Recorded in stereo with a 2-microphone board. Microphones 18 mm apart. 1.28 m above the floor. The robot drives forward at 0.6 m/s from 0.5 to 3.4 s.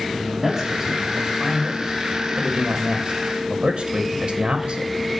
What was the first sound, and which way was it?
A man speaking, 20° right (ahead or behind).